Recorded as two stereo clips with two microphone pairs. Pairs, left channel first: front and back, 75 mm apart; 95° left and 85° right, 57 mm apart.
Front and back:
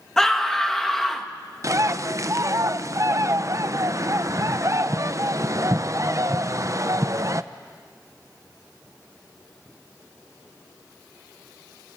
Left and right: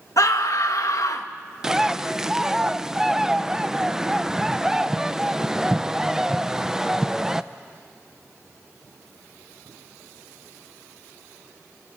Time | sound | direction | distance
0.2 | a scream | 85° left | 1.9 m
1.6 | a bird | 160° right | 0.6 m